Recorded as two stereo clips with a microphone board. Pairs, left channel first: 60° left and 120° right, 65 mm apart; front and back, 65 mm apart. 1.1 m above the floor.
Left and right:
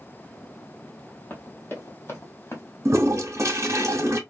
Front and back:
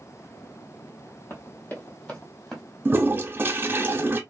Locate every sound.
1.3 s running footsteps: 20° left, 1.4 m; by 2.6 s 80° left, 1.4 m
2.9 s a toilet flushing: 135° right, 0.7 m